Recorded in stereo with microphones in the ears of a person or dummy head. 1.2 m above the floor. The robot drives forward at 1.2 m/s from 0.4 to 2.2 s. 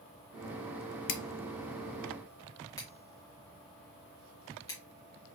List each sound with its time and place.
1.1 s scissors: 60° left (ahead or behind), 0.5 m; by 4.8 s 15° left (ahead or behind), 1.5 m